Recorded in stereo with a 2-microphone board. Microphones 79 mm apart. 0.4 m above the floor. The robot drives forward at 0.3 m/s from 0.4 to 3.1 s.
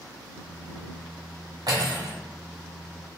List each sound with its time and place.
1.7 s cutlery clinking: 60° right (ahead or behind), 1.3 m; by 2.1 s 65° right (ahead or behind), 1.3 m